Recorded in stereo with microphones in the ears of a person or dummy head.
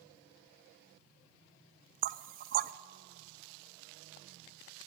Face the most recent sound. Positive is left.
turn(degrees=-50)  # may be behind; listen again after turning